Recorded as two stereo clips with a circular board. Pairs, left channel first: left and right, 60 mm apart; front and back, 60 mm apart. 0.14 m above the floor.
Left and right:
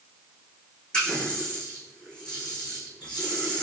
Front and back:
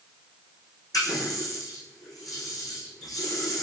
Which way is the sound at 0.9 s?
15° left.